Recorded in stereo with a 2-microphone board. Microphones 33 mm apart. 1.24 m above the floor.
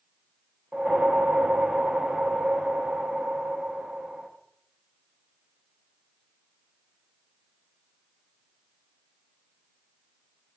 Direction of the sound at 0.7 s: 35° right (ahead or behind).